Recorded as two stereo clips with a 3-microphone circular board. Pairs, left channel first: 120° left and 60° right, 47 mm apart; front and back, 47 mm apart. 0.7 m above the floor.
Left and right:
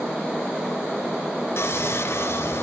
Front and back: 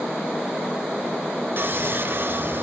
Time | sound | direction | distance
1.6 | sawing | 145° left | 3 m